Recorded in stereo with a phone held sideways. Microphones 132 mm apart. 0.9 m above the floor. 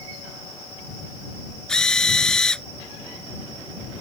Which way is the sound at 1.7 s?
5° left (ahead or behind).